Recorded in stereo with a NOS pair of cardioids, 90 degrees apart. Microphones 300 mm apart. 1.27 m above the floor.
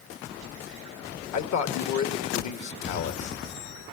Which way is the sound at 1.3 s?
65° left.